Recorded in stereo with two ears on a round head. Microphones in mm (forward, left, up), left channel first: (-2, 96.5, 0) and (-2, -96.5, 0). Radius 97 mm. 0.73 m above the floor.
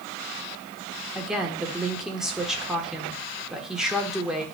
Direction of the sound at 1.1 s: 5° right (ahead or behind).